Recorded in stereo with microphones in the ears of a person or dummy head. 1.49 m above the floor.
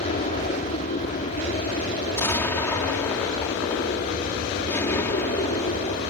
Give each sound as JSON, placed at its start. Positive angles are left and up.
{"t": 0.0, "sound": "an aircraft", "side_deg": 40}
{"t": 2.1, "sound": "an explosion", "side_deg": 10}